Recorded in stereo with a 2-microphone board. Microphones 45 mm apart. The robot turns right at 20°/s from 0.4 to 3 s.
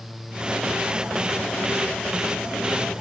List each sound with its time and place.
Only background noise.